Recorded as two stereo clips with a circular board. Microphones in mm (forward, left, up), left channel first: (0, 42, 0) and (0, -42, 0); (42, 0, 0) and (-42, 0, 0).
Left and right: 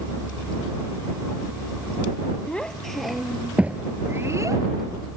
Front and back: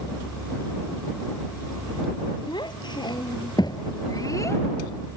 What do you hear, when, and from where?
2.5 s a child speaking: 15° left; by 4.7 s 50° right